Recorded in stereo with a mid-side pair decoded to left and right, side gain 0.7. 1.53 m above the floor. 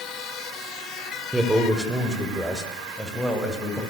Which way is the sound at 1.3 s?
10° right.